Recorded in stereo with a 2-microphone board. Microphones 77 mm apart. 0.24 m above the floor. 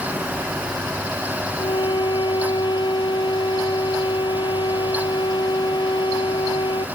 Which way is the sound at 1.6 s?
75° left (ahead or behind).